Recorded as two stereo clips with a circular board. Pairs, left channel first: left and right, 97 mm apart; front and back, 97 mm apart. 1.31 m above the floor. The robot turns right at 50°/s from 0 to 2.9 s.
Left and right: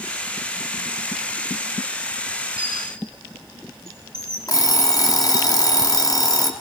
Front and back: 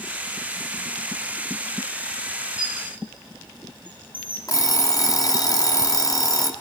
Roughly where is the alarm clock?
Ahead left.